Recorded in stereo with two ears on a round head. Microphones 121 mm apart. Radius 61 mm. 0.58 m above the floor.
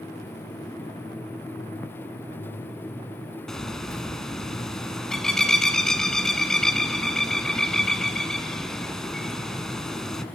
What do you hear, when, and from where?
3.5 s a bird: 5° left (ahead or behind), 0.9 m